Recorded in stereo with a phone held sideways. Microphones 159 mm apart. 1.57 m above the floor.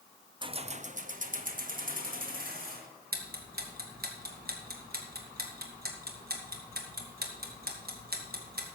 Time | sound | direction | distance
0.4 | keys jangling | 30° right (ahead or behind) | 0.5 m
3.1 | ticking | 75° right (ahead or behind) | 2 m